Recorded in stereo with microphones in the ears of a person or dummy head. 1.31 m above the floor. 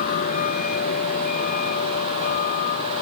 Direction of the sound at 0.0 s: 50° left (ahead or behind).